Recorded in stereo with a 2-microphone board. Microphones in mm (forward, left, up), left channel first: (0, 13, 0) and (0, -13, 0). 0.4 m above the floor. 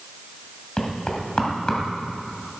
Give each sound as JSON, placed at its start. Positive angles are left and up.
{"t": 0.8, "sound": "knocking", "side_deg": 25, "distance_m": 2.5}